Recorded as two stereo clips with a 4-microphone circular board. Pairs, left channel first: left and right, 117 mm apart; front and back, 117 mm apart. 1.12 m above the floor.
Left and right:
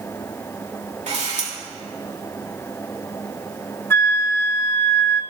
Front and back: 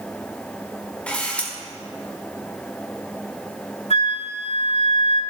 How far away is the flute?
About 1.7 m.